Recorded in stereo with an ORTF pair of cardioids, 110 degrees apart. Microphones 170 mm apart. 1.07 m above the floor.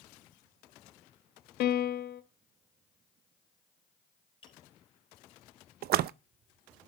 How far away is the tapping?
About 5 m.